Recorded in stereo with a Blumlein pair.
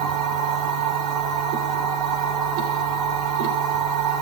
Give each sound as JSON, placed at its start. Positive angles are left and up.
{"t": 0.0, "sound": "a machine running", "azimuth_deg": -40, "distance_m": 2.5}